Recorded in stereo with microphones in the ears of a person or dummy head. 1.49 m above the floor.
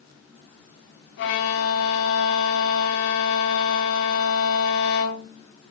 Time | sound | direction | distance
1.2 | a violin | 60° left (ahead or behind) | 2 m